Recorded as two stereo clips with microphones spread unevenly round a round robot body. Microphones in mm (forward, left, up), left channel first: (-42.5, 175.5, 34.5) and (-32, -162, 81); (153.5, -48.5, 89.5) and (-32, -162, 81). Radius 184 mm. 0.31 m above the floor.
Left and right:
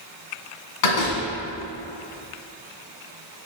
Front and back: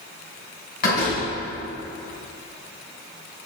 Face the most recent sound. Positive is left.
turn(degrees=90)